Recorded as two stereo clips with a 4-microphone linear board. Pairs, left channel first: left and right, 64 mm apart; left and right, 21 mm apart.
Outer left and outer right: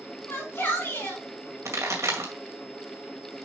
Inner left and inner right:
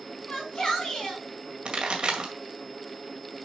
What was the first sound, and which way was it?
A shout, 35° left (ahead or behind).